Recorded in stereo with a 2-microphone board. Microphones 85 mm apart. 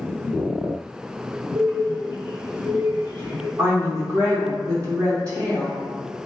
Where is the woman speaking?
35° right (ahead or behind), 0.7 m.